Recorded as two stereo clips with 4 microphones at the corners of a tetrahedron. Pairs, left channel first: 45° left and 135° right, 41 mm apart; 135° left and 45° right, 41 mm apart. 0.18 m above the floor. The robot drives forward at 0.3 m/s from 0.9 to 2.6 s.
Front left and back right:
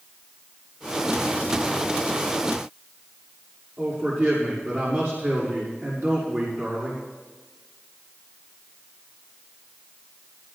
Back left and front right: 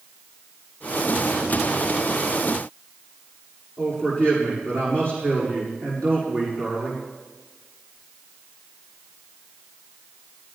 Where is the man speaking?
170° right, 7 m.